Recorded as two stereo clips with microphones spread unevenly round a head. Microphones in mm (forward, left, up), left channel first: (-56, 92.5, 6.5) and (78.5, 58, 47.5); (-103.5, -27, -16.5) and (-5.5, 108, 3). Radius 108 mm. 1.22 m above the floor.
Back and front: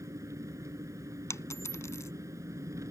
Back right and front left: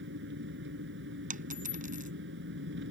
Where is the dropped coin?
90° left.